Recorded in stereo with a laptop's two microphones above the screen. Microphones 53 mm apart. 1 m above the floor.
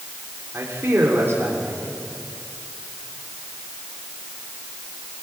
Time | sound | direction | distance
0.5 | a man speaking | 45° right (ahead or behind) | 3.5 m